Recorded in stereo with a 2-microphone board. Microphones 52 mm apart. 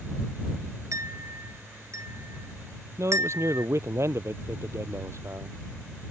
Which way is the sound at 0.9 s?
75° right (ahead or behind).